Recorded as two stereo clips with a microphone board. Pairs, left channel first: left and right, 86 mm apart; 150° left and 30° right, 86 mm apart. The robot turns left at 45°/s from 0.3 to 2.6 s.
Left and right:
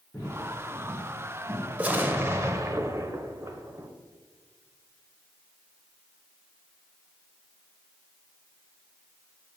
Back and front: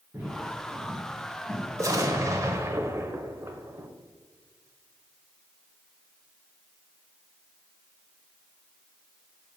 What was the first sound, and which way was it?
Footsteps, 30° left.